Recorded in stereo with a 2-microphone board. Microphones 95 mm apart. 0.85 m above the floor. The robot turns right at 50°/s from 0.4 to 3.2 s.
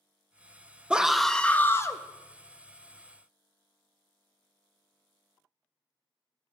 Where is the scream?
15° right, 0.6 m; by 2.0 s 40° left, 0.6 m.